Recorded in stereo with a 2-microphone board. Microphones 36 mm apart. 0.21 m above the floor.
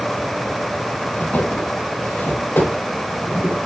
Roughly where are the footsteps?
Left.